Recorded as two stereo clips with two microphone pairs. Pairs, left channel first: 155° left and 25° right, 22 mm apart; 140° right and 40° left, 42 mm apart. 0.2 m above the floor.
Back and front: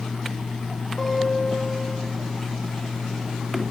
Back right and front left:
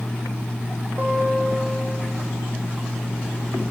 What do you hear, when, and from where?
1.0 s a guitar: 80° left, 7.5 m